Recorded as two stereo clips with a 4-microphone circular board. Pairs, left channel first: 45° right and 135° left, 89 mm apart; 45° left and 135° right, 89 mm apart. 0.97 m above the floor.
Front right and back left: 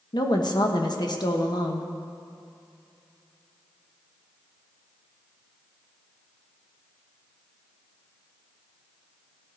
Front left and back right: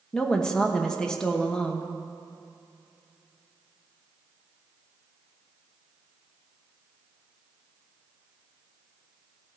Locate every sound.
0.1 s a woman speaking: 35° right, 1.1 m